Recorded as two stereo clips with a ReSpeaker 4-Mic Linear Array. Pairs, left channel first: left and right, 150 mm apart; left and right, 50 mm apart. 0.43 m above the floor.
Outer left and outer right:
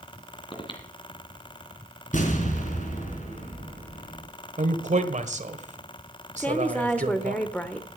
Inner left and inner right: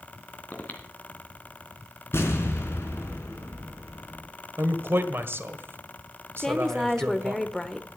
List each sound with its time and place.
0.5 s breathing: 35° left (ahead or behind), 2.5 m
2.1 s an explosion: 60° left (ahead or behind), 3.5 m
4.6 s a man speaking: 55° right (ahead or behind), 1.5 m
6.4 s a woman speaking: 10° left (ahead or behind), 1.1 m